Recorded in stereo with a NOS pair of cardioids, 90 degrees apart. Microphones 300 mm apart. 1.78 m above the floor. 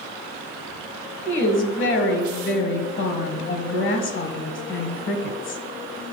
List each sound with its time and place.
1.2 s a woman speaking: 45° left, 1.3 m